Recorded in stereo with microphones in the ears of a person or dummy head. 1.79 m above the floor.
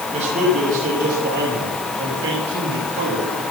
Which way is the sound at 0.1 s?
40° right (ahead or behind).